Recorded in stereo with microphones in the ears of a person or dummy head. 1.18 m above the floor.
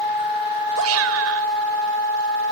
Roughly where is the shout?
Right.